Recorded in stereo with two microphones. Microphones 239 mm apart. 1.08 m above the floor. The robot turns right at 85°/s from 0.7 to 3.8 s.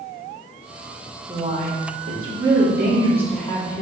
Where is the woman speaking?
170° right, 2.5 m; by 3.8 s 40° left, 2.5 m.